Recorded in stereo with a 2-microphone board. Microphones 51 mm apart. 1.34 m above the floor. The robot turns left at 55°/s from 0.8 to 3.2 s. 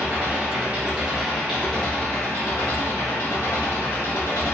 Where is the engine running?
150° right, 2.0 m; by 4.5 s 80° left, 2.0 m.